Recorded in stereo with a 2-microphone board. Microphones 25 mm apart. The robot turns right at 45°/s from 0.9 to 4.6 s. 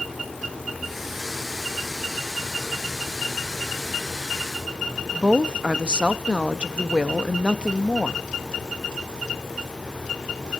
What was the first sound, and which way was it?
A woman speaking, 40° right (ahead or behind).